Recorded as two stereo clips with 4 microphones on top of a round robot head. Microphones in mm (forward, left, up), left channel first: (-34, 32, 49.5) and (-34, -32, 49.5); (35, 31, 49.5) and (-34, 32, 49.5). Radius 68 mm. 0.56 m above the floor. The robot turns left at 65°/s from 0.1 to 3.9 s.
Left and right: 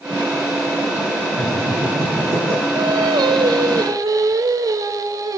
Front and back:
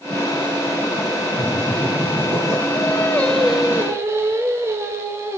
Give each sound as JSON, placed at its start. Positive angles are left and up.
{"t": 1.4, "sound": "laughter", "azimuth_deg": -65, "distance_m": 9.5}
{"t": 2.8, "sound": "singing", "azimuth_deg": -45, "distance_m": 1.2}